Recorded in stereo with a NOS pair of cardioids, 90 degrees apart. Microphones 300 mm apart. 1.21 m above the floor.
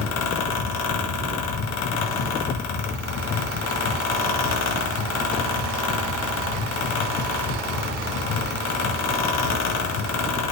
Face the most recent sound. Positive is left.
turn(degrees=60)